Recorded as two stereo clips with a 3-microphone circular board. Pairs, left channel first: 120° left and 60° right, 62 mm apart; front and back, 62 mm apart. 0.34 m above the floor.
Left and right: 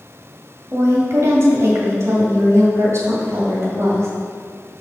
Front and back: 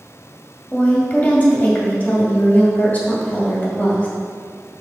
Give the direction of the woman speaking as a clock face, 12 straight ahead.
2 o'clock.